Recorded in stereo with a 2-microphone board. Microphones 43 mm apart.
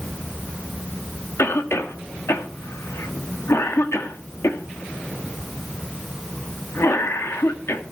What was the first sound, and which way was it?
A cough, 75° left (ahead or behind).